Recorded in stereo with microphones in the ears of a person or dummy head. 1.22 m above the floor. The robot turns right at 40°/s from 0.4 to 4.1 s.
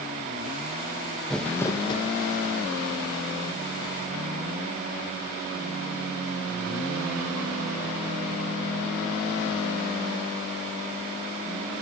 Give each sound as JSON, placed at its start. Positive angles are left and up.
{"t": 1.3, "sound": "crumpling", "azimuth_deg": 5, "distance_m": 1.0}